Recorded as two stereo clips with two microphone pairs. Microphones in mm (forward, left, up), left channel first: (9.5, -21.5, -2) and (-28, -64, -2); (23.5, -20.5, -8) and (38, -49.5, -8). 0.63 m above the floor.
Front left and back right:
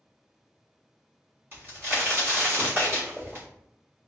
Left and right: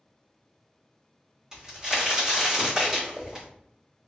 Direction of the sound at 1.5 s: 125° right.